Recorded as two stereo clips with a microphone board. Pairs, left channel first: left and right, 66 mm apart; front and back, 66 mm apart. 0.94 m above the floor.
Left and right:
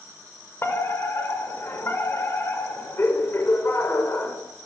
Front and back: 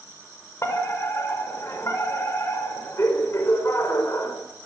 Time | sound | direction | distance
0.6 | a fire alarm | 40° left | 6 m